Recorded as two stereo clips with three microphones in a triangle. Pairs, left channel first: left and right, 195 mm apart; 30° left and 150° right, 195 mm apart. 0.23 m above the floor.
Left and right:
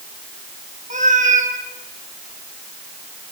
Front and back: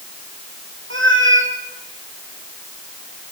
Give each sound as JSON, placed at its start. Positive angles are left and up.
{"t": 0.9, "sound": "a cat meowing", "azimuth_deg": -140, "distance_m": 3.0}